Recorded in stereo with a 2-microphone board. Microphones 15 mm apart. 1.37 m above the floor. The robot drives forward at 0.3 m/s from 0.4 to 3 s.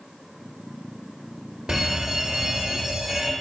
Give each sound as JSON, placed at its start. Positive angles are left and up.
{"t": 1.7, "sound": "a fire alarm", "side_deg": -55, "distance_m": 2.0}